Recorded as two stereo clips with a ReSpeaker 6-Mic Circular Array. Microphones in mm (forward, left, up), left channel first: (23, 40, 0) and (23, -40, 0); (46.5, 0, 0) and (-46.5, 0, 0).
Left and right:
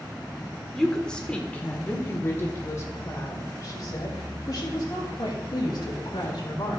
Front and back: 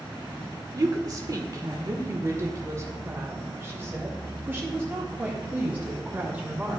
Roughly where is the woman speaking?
Behind.